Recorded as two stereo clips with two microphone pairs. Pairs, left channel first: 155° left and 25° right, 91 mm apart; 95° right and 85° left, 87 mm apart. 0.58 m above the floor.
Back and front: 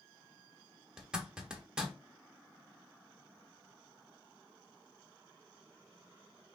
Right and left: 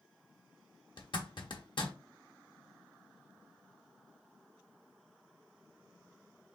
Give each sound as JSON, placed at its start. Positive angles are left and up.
{"t": 1.0, "sound": "a zipper", "azimuth_deg": -105, "distance_m": 1.0}